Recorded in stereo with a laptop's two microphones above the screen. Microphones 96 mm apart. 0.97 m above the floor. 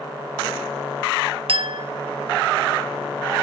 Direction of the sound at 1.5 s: 70° right (ahead or behind).